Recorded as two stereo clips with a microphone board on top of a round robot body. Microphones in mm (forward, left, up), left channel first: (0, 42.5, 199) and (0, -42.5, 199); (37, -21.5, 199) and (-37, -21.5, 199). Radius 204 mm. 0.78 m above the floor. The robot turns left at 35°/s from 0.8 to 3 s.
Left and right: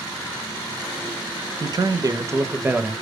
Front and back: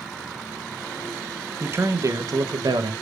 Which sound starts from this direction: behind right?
A man speaking, at 1.6 s.